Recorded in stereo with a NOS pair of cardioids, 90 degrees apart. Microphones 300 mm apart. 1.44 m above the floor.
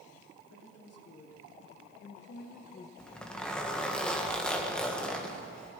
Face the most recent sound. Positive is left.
turn(degrees=5)